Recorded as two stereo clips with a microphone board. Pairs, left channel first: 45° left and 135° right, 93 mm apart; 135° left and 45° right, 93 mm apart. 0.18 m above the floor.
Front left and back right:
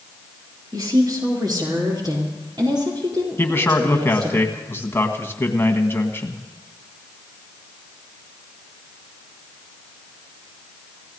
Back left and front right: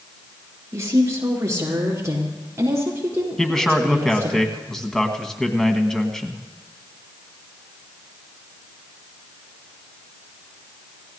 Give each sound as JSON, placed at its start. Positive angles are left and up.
{"t": 0.7, "sound": "a woman speaking", "azimuth_deg": -95, "distance_m": 3.5}
{"t": 3.4, "sound": "a man speaking", "azimuth_deg": 60, "distance_m": 1.5}